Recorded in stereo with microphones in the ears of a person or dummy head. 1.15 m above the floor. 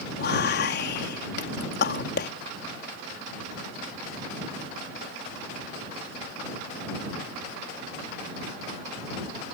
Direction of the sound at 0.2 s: 50° left (ahead or behind).